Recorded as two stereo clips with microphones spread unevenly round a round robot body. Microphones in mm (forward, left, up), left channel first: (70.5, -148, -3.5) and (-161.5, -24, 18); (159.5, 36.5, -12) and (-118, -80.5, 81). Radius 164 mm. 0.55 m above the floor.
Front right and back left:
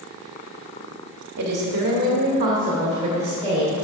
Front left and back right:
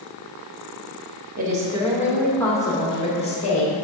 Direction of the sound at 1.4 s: 135° left.